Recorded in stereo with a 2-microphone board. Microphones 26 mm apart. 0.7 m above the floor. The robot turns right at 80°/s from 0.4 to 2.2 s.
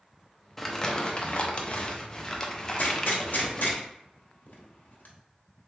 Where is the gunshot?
85° left, 1.0 m.